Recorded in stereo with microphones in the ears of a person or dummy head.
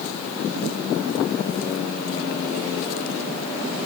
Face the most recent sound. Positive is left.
No sound to turn to.